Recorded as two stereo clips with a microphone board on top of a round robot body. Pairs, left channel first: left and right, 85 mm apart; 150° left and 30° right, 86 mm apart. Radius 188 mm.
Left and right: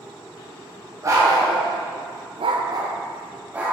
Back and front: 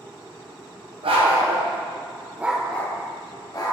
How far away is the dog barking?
About 1.5 m.